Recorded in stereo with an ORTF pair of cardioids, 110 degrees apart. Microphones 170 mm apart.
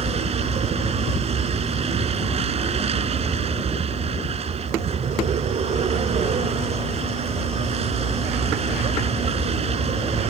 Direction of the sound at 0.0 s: 40° right.